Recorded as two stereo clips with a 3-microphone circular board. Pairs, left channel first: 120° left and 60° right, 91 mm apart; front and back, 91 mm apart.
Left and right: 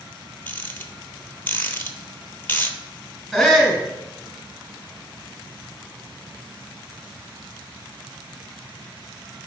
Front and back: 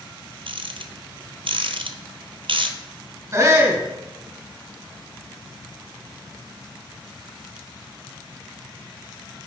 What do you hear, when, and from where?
0.5 s a rattle: 175° right, 0.7 m
3.3 s a shout: 150° right, 1.9 m